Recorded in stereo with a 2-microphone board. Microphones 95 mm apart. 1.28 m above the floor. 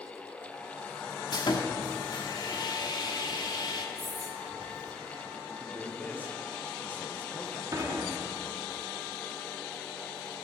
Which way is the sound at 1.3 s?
50° left (ahead or behind).